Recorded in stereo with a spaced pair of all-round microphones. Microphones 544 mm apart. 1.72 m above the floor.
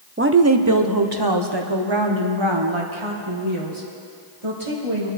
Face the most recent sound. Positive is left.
turn(degrees=-65)  # may be behind; listen again after turning